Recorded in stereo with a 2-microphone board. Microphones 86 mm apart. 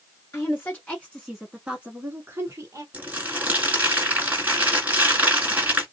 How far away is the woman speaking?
About 1.2 m.